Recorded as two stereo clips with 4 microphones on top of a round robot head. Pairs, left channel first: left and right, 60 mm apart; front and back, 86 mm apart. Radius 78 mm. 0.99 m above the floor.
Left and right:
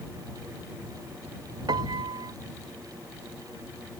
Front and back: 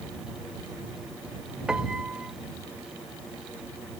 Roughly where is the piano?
Right.